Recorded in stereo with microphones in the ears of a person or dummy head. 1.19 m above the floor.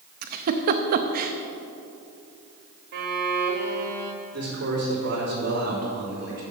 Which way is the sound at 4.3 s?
55° right (ahead or behind).